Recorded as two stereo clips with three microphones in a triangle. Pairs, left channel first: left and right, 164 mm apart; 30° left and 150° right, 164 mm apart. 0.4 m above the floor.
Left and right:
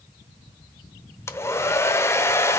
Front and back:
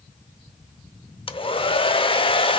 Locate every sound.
1.3 s a hair dryer: 30° left, 0.7 m